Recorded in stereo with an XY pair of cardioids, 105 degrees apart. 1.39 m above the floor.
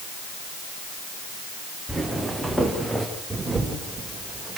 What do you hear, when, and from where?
1.9 s footsteps: 10° right, 5 m; by 3.0 s 5° left, 5.5 m
3.3 s a camera shutter: 20° right, 6 m